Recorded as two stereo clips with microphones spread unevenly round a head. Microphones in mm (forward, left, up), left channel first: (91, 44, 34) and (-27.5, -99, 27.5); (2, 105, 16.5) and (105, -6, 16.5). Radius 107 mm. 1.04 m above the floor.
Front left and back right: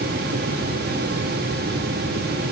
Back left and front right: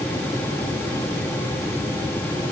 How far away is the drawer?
No drawer in this recording.